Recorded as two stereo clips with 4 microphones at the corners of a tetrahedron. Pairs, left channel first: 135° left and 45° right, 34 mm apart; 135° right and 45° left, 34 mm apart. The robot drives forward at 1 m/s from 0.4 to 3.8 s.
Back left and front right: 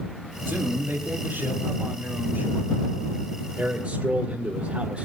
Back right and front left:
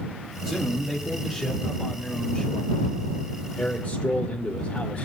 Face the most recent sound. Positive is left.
turn(degrees=-95)